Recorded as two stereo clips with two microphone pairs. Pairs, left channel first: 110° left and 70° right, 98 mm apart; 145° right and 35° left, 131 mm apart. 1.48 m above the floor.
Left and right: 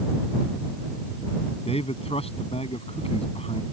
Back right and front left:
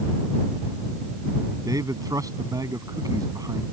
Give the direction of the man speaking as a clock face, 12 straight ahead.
9 o'clock.